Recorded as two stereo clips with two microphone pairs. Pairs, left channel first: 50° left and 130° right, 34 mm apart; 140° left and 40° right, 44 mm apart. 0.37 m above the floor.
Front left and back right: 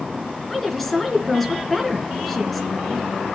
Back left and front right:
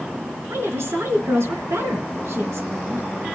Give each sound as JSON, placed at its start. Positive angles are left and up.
{"t": 0.5, "sound": "a woman speaking", "azimuth_deg": -40, "distance_m": 4.5}